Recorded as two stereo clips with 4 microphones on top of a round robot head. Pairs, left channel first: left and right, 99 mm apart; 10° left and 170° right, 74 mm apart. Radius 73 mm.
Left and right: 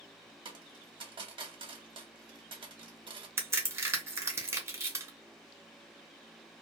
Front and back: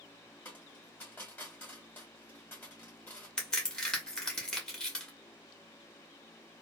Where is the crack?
60° right, 1.1 m.